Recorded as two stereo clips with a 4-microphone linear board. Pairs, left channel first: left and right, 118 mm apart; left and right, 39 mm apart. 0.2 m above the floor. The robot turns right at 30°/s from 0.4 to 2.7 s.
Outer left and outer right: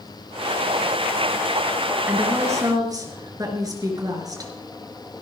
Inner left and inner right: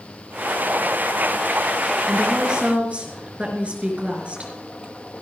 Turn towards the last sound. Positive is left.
turn(degrees=-30)  # may be behind; listen again after turning